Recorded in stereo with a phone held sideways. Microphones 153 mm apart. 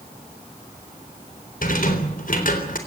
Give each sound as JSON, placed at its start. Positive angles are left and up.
{"t": 1.6, "sound": "a rattle", "side_deg": 65, "distance_m": 3.5}